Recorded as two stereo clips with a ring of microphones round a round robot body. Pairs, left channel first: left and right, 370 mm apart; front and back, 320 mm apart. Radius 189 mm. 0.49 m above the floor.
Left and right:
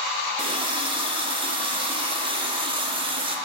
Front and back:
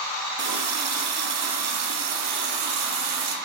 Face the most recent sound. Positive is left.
turn(degrees=-165)